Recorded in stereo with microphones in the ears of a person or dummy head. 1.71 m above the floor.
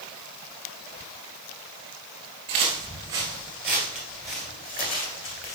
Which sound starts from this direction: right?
Footsteps, at 2.5 s.